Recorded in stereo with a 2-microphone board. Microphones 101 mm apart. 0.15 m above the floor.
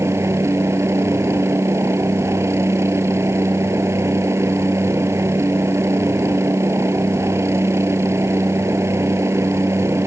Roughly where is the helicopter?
Right.